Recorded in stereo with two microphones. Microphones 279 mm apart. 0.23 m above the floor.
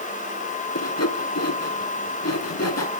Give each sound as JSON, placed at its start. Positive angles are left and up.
{"t": 0.8, "sound": "sawing", "side_deg": 60, "distance_m": 1.6}